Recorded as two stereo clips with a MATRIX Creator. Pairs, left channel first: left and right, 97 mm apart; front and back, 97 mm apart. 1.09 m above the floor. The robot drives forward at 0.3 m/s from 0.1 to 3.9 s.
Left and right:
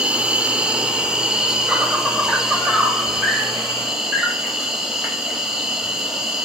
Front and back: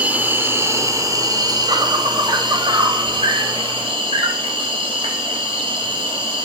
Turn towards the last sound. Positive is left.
turn(degrees=-175)